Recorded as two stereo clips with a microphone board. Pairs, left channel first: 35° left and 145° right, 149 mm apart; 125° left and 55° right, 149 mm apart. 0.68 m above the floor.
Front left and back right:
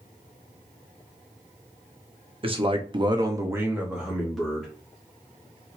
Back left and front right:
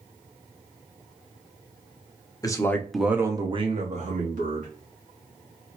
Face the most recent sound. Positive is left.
turn(degrees=-50)